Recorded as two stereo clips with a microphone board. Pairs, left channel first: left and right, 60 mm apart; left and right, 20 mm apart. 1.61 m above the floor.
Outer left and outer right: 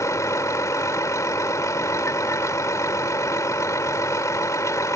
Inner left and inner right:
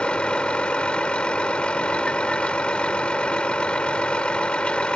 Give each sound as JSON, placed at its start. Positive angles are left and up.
{"t": 0.0, "sound": "a vehicle", "side_deg": 70}